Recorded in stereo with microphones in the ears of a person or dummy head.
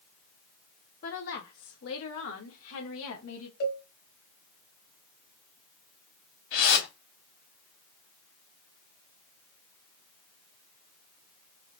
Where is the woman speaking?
45° left (ahead or behind), 1.0 m; by 3.5 s 75° left (ahead or behind), 2.5 m.